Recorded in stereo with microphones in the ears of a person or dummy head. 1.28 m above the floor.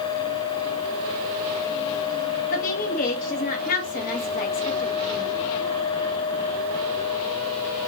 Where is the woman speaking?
40° left (ahead or behind), 0.7 m.